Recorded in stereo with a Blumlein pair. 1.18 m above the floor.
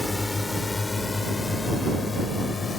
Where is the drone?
10° left; by 2.8 s 15° left.